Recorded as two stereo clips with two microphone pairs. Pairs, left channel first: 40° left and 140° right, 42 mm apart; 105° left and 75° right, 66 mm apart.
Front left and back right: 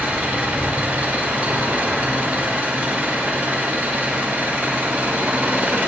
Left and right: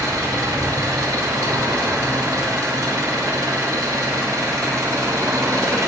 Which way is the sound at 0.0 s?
95° right.